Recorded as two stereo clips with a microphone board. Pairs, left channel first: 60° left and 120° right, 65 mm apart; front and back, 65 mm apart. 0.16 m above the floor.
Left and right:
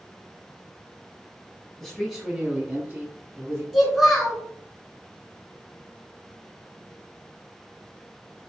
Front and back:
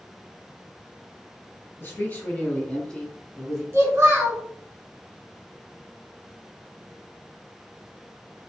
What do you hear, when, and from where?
1.8 s a man speaking: 25° right, 1.5 m; by 3.6 s 90° right, 1.8 m
3.7 s a child speaking: 150° left, 1.0 m